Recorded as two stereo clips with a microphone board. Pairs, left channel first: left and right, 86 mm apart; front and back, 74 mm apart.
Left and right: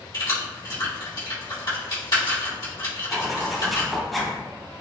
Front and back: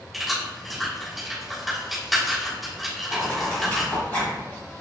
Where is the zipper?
5° left, 1.6 m.